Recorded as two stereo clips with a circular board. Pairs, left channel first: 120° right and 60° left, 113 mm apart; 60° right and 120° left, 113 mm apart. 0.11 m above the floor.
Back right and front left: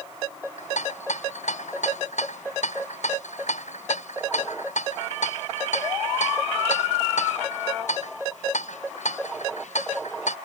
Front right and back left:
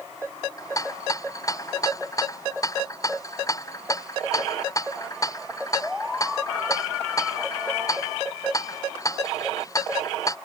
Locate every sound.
0.6 s a rattle: 120° right